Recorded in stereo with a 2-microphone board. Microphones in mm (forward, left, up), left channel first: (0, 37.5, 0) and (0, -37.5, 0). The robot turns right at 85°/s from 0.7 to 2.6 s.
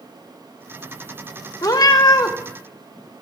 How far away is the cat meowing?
About 0.6 m.